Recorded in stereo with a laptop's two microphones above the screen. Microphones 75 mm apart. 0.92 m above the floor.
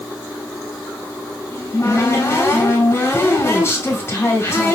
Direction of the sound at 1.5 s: 35° left (ahead or behind).